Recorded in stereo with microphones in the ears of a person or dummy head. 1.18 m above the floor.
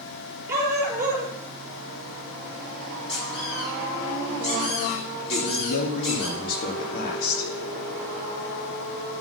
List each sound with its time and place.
0.5 s a dog barking: 10° right (ahead or behind), 4 m
3.1 s a squeak: 40° left (ahead or behind), 7 m
5.3 s a man speaking: 60° left (ahead or behind), 2.5 m